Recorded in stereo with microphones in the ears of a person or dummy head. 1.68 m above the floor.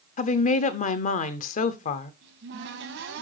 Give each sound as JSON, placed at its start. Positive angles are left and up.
{"t": 0.2, "sound": "a woman speaking", "side_deg": 45, "distance_m": 0.6}
{"t": 2.2, "sound": "a cupboard door", "side_deg": -70, "distance_m": 2.0}